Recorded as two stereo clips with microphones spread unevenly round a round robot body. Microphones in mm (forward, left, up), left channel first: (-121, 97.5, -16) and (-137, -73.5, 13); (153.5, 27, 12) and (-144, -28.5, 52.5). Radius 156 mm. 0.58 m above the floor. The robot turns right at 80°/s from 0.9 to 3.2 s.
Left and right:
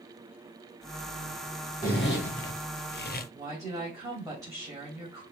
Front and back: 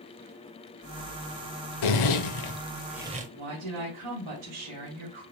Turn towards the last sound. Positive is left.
turn(degrees=-170)